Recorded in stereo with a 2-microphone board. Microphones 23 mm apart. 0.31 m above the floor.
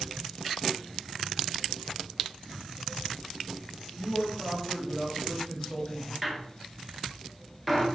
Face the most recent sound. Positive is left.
turn(degrees=5)  # may be behind; listen again after turning